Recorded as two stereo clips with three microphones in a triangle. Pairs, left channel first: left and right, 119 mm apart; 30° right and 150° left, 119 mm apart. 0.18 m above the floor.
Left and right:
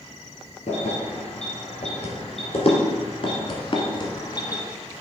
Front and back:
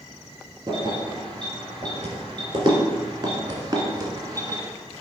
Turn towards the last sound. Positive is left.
turn(degrees=115)